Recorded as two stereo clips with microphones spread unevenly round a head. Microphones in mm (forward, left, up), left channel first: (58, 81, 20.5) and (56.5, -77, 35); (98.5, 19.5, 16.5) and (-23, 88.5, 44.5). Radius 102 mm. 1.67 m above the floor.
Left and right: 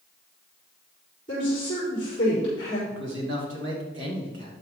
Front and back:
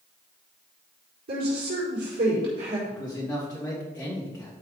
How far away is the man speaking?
About 2.5 m.